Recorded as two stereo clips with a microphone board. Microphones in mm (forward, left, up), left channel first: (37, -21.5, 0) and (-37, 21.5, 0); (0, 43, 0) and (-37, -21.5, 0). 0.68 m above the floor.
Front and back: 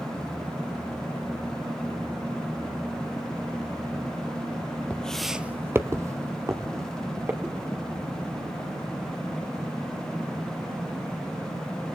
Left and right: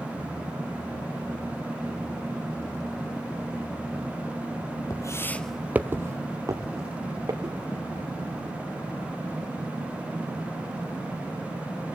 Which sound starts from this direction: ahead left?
Footsteps, at 4.9 s.